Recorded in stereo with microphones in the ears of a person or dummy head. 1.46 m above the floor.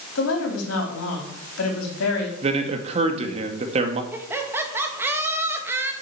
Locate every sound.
0.1 s a woman speaking: 85° left, 4 m
2.4 s a man speaking: 35° right (ahead or behind), 1.9 m
4.1 s laughter: 10° right (ahead or behind), 2 m